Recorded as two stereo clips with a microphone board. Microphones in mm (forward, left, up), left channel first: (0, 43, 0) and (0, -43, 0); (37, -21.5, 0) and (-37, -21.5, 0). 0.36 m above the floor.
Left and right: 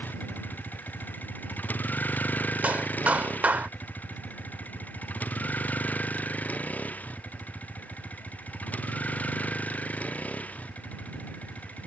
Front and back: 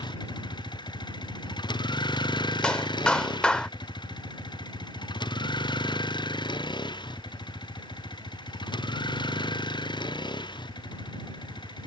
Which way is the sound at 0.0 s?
20° left.